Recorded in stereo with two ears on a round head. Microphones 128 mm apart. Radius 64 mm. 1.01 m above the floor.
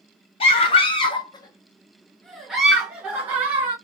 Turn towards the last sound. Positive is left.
turn(degrees=-15)  # may be behind; listen again after turning